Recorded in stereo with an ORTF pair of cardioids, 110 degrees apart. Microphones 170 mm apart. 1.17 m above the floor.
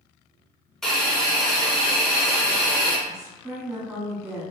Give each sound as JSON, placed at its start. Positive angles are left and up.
{"t": 0.8, "sound": "a hiss", "azimuth_deg": 5, "distance_m": 0.8}
{"t": 3.1, "sound": "a woman speaking", "azimuth_deg": -20, "distance_m": 1.7}